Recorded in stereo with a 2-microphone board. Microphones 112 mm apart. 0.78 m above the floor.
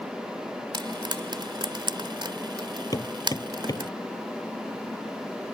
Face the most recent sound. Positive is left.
turn(degrees=35)  # may be behind; listen again after turning